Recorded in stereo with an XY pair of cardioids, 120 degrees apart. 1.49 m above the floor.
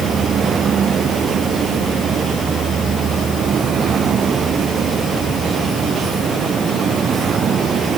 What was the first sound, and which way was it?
Only background noise.